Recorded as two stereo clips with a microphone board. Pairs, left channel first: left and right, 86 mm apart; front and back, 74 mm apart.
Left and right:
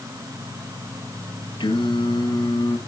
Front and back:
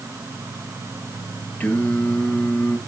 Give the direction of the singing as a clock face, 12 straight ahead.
10 o'clock.